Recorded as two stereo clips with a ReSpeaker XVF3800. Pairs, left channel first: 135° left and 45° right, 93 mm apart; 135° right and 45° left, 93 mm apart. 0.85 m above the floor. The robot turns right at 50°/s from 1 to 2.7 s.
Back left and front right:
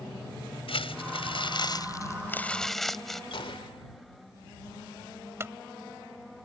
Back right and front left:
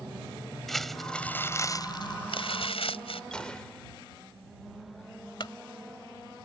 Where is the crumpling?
135° left; by 3.2 s 140° right.